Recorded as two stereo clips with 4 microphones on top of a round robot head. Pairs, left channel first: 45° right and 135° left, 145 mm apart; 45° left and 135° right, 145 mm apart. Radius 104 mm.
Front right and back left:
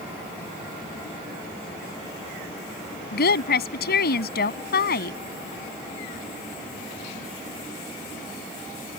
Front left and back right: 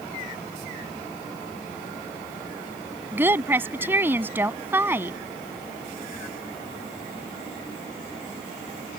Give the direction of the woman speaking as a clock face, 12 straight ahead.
2 o'clock.